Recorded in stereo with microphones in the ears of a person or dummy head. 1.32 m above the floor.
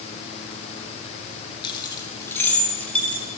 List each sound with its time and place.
1.6 s keys jangling: 30° left (ahead or behind), 1.6 m; by 3.2 s 5° left (ahead or behind), 3.5 m